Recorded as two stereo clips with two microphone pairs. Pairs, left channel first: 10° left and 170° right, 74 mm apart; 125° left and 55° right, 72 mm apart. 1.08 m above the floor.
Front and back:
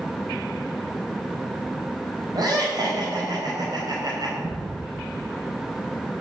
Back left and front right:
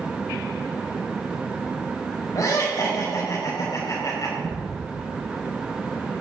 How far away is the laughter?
About 5 m.